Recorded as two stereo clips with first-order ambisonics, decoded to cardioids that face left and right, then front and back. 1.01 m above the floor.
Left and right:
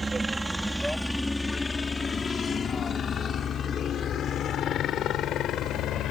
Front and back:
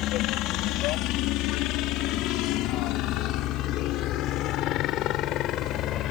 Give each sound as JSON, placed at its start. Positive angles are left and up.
{"t": 0.0, "sound": "a helicopter", "azimuth_deg": -15}